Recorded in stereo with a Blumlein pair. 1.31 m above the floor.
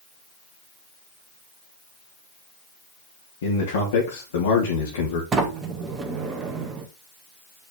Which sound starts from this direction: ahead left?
A man speaking, at 3.4 s.